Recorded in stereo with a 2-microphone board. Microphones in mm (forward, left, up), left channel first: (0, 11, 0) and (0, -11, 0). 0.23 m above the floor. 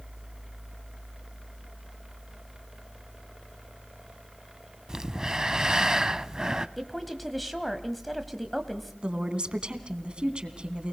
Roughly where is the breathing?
Right.